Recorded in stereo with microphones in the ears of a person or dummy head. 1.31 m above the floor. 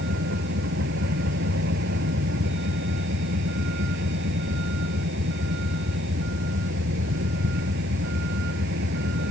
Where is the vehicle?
60° right (ahead or behind).